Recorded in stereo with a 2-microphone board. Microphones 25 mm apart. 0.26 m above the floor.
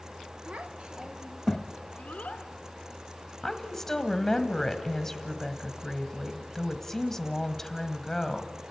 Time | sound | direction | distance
0.5 | a child speaking | 55° right (ahead or behind) | 1.1 m
3.4 | a woman speaking | 15° left (ahead or behind) | 1.4 m